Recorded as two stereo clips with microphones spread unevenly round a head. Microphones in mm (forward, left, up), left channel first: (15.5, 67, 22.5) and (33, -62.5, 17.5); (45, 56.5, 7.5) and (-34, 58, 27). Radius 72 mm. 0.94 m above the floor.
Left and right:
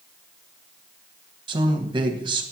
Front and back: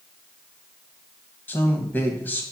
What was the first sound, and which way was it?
A man speaking, 45° right.